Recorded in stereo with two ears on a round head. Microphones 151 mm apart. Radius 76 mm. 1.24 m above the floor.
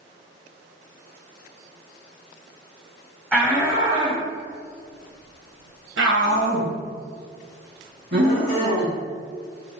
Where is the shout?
10° left (ahead or behind), 0.9 m; by 8.9 s 60° right (ahead or behind), 2.5 m.